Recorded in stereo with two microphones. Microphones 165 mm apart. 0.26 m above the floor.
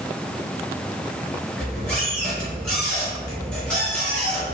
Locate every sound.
1.6 s a squeak: 5° left (ahead or behind), 1.9 m